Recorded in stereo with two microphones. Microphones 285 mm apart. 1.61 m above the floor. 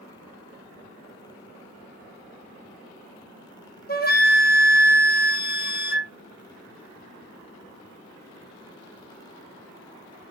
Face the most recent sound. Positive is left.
turn(degrees=35)  # may be behind; listen again after turning